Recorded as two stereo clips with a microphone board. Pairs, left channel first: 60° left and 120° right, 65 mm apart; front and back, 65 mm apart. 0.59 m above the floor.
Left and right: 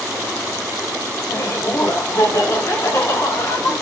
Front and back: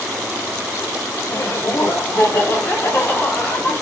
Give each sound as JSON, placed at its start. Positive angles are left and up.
{"t": 1.3, "sound": "laughter", "azimuth_deg": 40, "distance_m": 2.5}